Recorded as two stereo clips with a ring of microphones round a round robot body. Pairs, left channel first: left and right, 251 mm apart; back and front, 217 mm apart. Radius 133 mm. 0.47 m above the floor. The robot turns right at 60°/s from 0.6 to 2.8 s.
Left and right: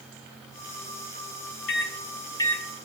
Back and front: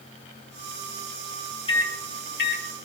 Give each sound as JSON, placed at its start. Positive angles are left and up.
{"t": 1.7, "sound": "a microwave", "azimuth_deg": 120, "distance_m": 1.3}